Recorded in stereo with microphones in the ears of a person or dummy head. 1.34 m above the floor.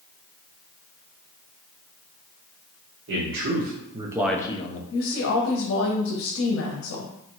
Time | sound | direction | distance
3.1 | a man speaking | 70° right (ahead or behind) | 1.3 m
4.9 | a woman speaking | 65° left (ahead or behind) | 0.8 m